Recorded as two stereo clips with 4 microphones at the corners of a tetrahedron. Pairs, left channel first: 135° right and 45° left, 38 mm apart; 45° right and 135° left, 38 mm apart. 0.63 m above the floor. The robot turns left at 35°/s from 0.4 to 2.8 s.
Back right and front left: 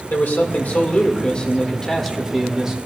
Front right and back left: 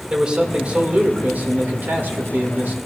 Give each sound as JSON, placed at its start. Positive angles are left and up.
{"t": 0.1, "sound": "a man speaking", "azimuth_deg": -165, "distance_m": 1.9}